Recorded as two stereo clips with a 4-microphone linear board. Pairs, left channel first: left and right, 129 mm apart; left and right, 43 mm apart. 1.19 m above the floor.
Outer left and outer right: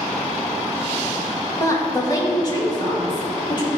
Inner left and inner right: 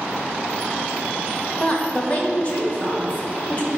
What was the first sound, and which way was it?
A woman speaking, 25° left (ahead or behind).